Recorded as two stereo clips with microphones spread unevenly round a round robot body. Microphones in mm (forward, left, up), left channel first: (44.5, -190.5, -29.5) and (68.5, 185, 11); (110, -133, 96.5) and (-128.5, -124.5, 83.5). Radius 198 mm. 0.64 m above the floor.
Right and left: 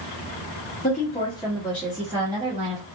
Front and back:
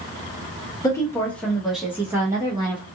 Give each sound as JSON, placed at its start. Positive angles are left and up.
{"t": 0.8, "sound": "a woman speaking", "azimuth_deg": -70, "distance_m": 1.2}